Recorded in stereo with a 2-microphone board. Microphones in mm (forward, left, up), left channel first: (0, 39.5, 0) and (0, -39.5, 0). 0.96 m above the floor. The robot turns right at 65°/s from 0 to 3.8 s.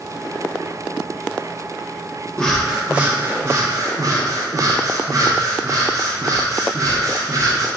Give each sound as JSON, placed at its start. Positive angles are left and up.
{"t": 2.4, "sound": "breathing", "azimuth_deg": 165, "distance_m": 0.6}